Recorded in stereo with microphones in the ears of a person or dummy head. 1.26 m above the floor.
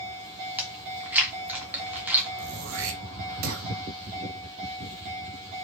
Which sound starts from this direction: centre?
Chewing, at 0.6 s.